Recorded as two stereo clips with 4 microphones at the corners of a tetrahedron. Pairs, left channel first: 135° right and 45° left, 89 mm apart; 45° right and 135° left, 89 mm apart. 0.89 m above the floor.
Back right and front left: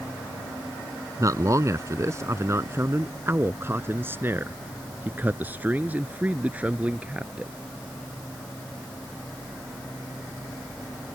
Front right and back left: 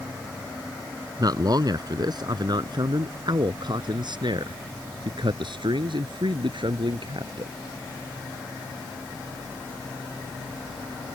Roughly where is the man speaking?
Left.